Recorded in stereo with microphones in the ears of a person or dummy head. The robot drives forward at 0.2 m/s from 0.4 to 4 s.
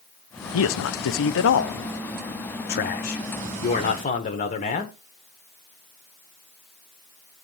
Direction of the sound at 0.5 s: 70° left (ahead or behind).